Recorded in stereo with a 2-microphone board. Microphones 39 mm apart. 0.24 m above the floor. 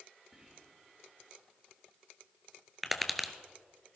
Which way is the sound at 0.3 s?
30° right (ahead or behind).